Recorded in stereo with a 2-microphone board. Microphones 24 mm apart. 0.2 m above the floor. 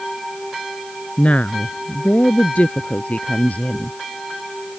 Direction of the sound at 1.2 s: 60° left (ahead or behind).